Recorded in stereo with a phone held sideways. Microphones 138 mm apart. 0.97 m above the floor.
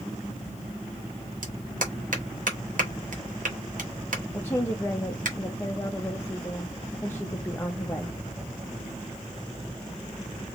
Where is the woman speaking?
15° left (ahead or behind), 0.7 m.